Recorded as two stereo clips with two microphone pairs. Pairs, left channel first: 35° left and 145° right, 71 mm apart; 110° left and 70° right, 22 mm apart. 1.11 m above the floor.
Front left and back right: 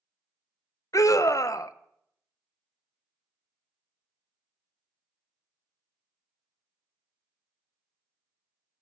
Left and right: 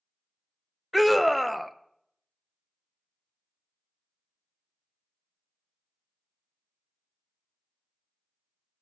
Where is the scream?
20° left, 0.6 m.